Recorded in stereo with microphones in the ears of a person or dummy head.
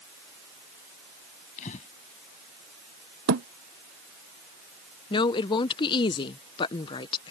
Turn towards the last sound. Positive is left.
turn(degrees=20)  # may be behind; listen again after turning